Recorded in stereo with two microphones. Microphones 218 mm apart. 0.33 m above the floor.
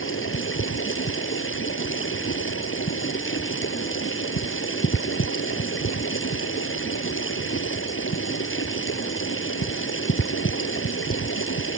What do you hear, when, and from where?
0.0 s running water: 65° left (ahead or behind)